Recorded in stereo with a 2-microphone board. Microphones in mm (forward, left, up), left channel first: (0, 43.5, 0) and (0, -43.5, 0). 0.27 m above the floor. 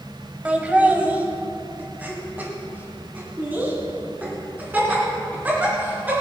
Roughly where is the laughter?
Centre.